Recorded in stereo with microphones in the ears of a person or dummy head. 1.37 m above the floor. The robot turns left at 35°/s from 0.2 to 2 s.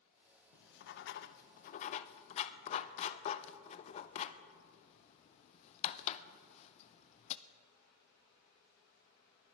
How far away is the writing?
About 0.6 m.